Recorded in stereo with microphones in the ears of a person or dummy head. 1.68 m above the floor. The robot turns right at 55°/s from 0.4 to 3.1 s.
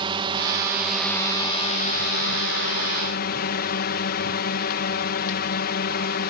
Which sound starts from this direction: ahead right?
A drone, at 0.0 s.